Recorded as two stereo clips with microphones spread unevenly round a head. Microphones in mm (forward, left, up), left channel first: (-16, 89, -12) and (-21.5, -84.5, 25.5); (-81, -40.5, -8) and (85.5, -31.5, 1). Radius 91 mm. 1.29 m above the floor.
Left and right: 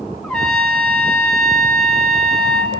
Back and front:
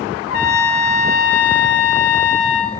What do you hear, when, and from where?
0.2 s a trumpet: 175° left, 3 m